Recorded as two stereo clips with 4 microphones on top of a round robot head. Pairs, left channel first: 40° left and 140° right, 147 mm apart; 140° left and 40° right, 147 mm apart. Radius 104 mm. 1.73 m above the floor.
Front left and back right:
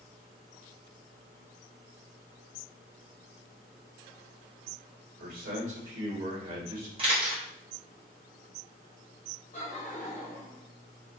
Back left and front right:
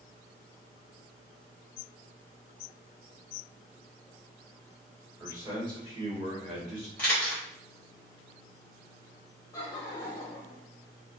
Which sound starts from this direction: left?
Laughter, at 9.5 s.